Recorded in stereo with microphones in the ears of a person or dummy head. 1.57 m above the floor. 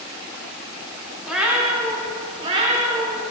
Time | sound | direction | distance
1.2 | a cat meowing | 10° right (ahead or behind) | 1.6 m